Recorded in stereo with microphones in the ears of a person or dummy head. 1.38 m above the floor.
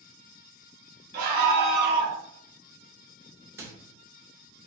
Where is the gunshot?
I don't hear a gunshot.